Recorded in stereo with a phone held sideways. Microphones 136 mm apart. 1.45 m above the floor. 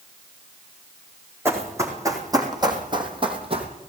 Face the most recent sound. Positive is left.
turn(degrees=-45)  # may be behind; listen again after turning